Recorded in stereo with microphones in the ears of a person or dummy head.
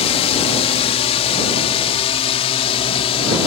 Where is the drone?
35° left (ahead or behind).